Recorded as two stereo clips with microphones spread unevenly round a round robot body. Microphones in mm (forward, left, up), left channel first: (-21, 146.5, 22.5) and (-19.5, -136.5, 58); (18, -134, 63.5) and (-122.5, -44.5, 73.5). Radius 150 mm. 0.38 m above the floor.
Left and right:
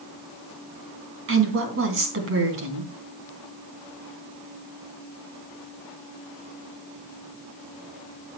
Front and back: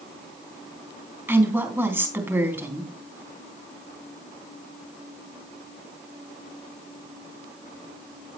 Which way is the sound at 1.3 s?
135° right.